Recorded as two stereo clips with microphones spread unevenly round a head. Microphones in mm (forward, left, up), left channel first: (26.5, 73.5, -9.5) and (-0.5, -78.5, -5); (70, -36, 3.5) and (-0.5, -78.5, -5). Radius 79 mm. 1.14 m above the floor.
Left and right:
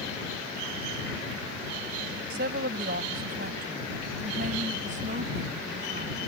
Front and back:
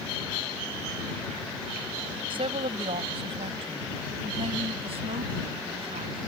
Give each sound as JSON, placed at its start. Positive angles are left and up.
{"t": 2.3, "sound": "a woman speaking", "azimuth_deg": -135}